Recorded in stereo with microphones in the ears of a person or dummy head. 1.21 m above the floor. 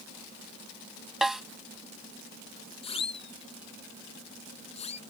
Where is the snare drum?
5° right (ahead or behind).